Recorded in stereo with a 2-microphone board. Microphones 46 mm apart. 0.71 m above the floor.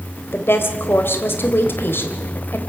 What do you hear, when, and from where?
0.3 s a woman speaking: 65° left (ahead or behind), 3 m